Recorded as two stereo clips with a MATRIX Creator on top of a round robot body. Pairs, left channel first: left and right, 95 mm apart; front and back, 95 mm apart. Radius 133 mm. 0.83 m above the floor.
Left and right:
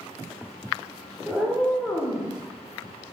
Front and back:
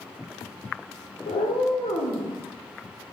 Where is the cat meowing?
5° right, 1.4 m; by 2.3 s 25° left, 1.3 m.